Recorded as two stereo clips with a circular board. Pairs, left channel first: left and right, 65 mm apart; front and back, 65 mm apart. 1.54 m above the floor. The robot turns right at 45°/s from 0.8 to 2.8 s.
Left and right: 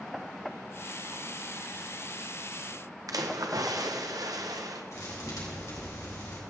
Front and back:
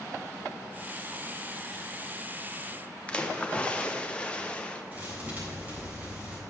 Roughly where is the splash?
Right.